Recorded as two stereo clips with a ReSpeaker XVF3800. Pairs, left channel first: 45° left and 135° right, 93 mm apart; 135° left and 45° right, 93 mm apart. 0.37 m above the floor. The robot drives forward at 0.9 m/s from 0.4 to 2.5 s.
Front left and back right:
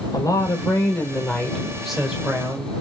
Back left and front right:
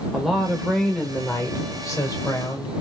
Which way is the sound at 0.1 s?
40° left.